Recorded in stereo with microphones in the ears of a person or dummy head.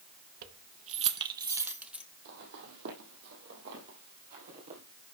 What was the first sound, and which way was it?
Keys jangling, 50° right (ahead or behind).